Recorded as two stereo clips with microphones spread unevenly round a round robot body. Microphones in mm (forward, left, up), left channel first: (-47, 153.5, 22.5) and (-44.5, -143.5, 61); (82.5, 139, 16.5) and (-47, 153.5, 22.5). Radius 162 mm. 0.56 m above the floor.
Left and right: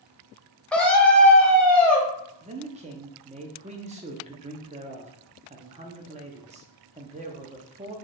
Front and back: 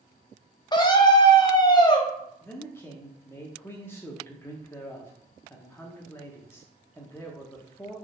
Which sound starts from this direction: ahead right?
A man speaking, at 2.4 s.